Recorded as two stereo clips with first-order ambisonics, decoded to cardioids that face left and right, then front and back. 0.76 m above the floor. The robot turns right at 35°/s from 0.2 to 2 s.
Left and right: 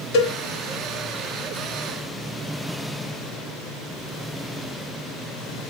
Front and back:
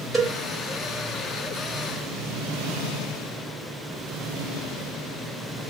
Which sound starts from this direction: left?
A cowbell, at 0.1 s.